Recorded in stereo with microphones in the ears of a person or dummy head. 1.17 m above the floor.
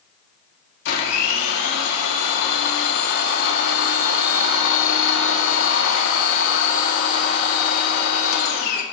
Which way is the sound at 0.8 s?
70° left (ahead or behind).